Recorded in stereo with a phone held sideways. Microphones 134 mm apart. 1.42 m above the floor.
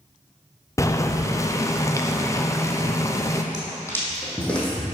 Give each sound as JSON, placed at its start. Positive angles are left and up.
{"t": 0.8, "sound": "boiling", "side_deg": 25, "distance_m": 0.6}
{"t": 3.5, "sound": "footsteps", "side_deg": 30, "distance_m": 2.5}